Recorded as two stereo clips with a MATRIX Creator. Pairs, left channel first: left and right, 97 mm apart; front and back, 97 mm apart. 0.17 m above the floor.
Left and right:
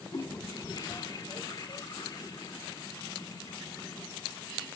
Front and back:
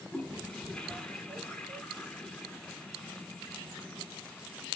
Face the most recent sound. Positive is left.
turn(degrees=80)